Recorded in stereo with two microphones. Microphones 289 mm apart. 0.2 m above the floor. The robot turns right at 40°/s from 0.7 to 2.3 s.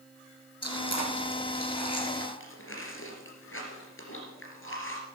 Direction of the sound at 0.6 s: 60° left (ahead or behind).